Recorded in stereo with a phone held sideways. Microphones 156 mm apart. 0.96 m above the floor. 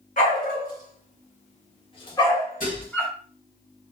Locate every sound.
0.2 s a dog barking: 60° left (ahead or behind), 1.1 m; by 3.1 s 5° left (ahead or behind), 1.1 m
2.6 s dishes clattering: 60° left (ahead or behind), 1.4 m